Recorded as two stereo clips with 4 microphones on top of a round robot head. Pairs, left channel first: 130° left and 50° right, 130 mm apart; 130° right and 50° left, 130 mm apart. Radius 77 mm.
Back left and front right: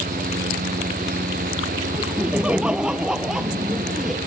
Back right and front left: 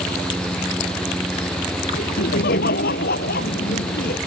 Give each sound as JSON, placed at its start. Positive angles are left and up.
{"t": 1.9, "sound": "laughter", "azimuth_deg": -135}